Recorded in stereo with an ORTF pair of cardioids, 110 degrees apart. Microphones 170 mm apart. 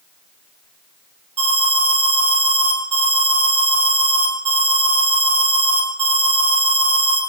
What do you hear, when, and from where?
1.4 s an alarm: 40° right, 6 m